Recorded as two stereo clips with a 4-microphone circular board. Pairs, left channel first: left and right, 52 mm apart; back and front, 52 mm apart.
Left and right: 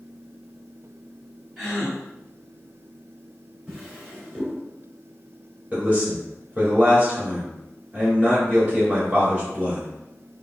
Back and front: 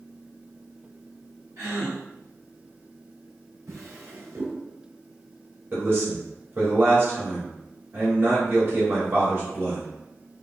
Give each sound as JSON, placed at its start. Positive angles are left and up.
{"t": 1.6, "sound": "a gasp", "azimuth_deg": -10, "distance_m": 2.5}
{"t": 3.7, "sound": "a drawer", "azimuth_deg": -20, "distance_m": 1.9}
{"t": 5.7, "sound": "a man speaking", "azimuth_deg": -35, "distance_m": 1.9}